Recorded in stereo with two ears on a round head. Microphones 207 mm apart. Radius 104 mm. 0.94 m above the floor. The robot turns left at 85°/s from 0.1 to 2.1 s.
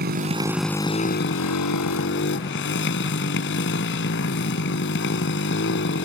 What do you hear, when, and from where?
0.0 s a motorcycle: 135° right; by 6.1 s 55° left